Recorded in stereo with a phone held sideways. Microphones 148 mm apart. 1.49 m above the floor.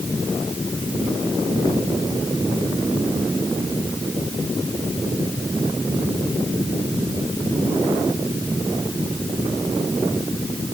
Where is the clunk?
I don't hear a clunk.